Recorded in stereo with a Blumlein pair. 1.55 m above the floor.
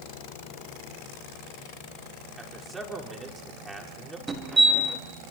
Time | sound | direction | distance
2.4 | a man speaking | 5° right | 5 m
4.3 | a fire alarm | 10° right | 5 m